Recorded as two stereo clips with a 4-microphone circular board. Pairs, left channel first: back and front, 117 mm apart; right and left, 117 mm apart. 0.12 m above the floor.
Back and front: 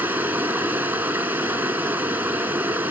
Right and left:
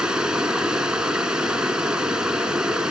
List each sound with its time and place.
0.0 s running water: 25° left, 1.1 m